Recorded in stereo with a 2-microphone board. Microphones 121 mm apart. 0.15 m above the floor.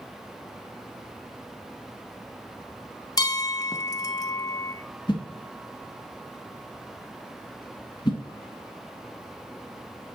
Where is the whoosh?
40° left (ahead or behind), 1.3 m.